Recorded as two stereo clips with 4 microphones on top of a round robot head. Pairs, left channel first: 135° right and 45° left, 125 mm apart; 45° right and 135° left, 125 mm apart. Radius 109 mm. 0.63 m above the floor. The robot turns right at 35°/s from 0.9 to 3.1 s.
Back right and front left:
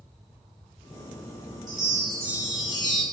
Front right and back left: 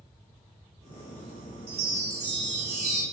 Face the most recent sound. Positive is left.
turn(degrees=150)